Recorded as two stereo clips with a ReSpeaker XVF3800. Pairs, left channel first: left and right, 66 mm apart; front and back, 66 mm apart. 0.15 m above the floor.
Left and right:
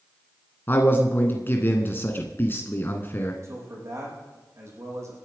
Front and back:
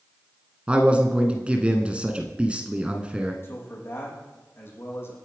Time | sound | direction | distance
0.7 | a man speaking | 120° left | 1.5 m
3.4 | a man speaking | 50° right | 5.5 m